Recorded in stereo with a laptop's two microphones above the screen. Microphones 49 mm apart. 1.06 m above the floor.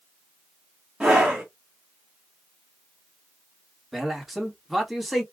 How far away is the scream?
About 1.9 m.